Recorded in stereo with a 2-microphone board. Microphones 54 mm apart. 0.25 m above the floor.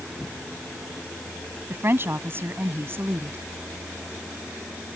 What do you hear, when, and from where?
1.7 s a woman speaking: 45° right (ahead or behind)